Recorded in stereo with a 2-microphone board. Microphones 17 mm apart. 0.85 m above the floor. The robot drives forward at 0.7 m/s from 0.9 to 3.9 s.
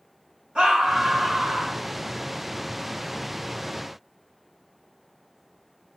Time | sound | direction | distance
0.6 | a scream | 70° right (ahead or behind) | 4 m